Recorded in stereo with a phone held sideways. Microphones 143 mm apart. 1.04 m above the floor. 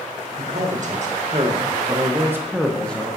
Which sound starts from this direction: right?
A man speaking, at 0.4 s.